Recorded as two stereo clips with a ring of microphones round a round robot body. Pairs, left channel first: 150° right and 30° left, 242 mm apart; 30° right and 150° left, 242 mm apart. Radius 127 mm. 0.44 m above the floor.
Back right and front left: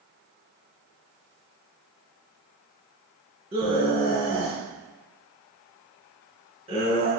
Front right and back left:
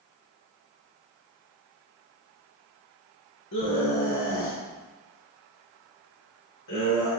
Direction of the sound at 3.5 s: 35° right.